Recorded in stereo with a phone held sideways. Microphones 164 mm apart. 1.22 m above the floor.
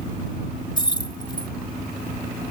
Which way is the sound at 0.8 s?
30° left (ahead or behind).